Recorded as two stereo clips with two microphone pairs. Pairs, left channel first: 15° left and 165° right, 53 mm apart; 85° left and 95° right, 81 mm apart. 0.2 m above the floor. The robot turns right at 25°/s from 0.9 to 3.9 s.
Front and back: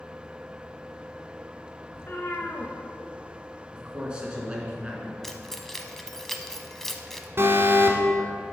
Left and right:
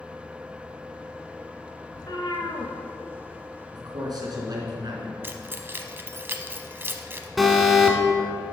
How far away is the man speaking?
About 2.5 m.